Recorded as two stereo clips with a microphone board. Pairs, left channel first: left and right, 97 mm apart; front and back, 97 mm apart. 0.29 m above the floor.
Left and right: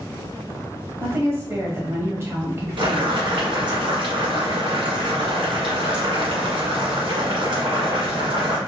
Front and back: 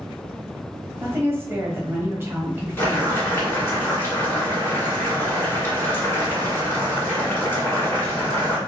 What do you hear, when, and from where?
1.0 s a woman speaking: 130° right, 1.5 m
2.8 s boiling: 65° right, 1.7 m